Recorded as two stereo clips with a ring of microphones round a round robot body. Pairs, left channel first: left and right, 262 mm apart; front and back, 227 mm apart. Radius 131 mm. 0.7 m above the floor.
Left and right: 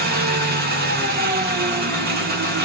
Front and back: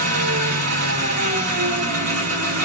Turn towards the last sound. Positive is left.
turn(degrees=-145)